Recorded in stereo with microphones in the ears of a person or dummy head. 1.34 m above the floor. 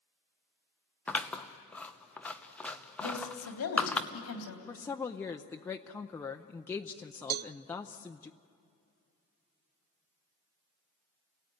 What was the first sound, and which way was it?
Scissors, 5° left (ahead or behind).